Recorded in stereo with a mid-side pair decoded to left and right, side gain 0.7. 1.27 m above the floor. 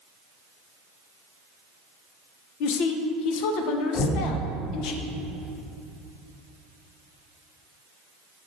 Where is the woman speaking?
65° left, 0.7 m.